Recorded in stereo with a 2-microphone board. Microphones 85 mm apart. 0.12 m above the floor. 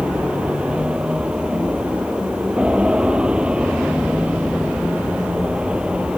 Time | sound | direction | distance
0.0 | an aircraft | 10° right (ahead or behind) | ?